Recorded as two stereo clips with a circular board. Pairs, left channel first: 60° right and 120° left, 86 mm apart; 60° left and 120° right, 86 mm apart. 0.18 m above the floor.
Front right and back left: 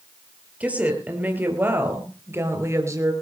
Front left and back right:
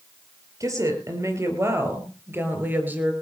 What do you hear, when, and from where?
0.6 s a woman speaking: 165° right, 5 m; by 3.1 s 170° left, 4 m